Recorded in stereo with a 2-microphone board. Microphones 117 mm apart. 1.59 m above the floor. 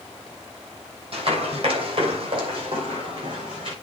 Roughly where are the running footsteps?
Right.